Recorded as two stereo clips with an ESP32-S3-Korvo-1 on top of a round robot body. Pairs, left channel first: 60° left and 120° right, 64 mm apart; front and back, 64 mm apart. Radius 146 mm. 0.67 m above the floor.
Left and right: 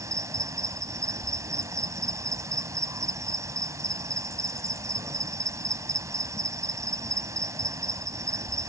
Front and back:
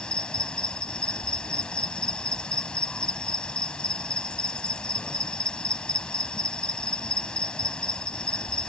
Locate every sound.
0.0 s an insect: 75° right